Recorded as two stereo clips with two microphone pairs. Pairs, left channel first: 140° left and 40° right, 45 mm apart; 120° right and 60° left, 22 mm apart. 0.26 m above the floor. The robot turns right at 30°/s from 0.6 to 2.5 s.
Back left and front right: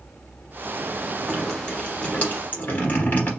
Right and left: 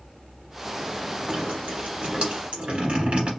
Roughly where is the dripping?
Ahead left.